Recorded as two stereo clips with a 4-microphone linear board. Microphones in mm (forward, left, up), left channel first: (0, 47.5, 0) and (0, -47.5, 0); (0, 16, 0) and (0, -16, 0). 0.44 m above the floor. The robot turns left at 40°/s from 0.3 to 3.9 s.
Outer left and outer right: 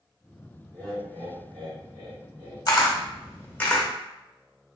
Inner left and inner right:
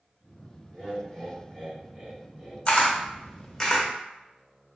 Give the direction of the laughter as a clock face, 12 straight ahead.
2 o'clock.